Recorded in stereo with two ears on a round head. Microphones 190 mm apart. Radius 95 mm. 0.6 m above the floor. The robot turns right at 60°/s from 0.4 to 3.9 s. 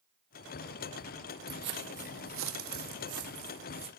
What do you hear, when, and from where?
1.5 s footsteps: 50° right (ahead or behind), 1.1 m; by 3.9 s 25° right (ahead or behind), 2.5 m